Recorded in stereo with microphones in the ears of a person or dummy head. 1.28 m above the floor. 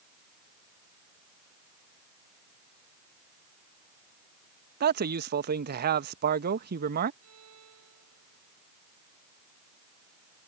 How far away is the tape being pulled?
No tape being pulled in this recording.